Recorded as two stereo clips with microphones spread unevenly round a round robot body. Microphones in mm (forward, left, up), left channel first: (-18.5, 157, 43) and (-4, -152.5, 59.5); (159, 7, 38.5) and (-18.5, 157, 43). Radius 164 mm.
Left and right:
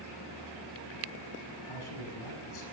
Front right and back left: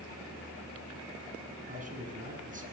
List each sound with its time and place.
1.7 s a man speaking: 85° left, 7 m